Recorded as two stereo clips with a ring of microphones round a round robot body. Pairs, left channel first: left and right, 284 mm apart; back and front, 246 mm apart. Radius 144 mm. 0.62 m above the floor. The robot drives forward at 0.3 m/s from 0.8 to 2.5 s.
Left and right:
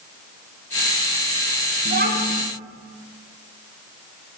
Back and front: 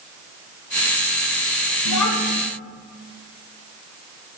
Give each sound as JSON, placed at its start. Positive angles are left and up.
{"t": 1.9, "sound": "a child speaking", "azimuth_deg": -150, "distance_m": 3.0}